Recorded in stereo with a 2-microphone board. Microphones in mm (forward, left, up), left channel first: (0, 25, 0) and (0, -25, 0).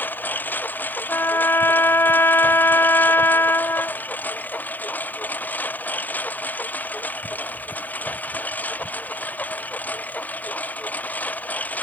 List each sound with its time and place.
0.0 s a lawn mower: 35° left (ahead or behind); by 11.8 s 30° left (ahead or behind)
1.1 s a trumpet: 50° left (ahead or behind)